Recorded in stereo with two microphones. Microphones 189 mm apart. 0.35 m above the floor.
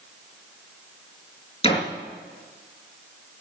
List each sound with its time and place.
1.6 s a door slam: 30° left (ahead or behind), 4.5 m